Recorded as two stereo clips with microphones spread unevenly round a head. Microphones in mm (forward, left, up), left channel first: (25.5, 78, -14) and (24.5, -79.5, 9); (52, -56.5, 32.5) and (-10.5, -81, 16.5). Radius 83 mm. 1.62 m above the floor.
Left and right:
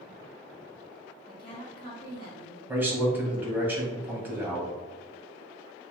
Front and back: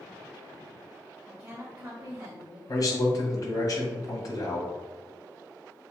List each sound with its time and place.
1.3 s a woman speaking: 135° left, 2.0 m
2.7 s a man speaking: 10° right, 1.9 m